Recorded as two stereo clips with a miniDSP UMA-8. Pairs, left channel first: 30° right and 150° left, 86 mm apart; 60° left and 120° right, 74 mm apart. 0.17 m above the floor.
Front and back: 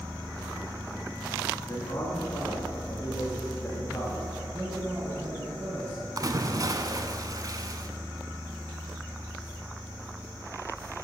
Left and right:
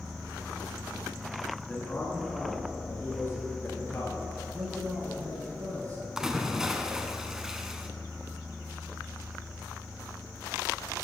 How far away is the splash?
About 0.6 m.